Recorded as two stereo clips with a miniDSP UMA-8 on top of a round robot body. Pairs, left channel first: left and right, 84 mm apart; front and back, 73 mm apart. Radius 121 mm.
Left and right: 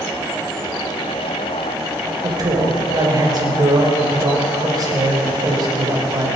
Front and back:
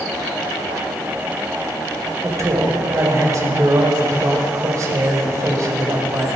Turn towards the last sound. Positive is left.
turn(degrees=-135)